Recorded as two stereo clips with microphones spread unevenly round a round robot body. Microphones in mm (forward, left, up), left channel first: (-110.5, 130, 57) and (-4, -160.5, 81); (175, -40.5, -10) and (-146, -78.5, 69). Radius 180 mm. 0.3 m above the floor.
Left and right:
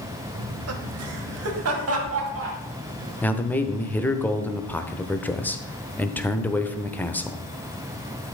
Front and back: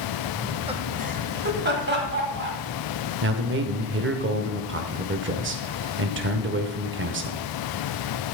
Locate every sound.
0.3 s laughter: 70° right, 1.2 m; by 2.6 s 115° right, 3.5 m
3.2 s a man speaking: 170° left, 1.0 m